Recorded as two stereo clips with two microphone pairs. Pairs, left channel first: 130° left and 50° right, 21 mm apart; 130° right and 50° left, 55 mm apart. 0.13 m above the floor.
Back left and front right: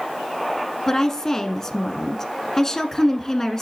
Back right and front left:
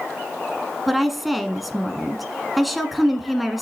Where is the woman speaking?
140° left, 1.2 m.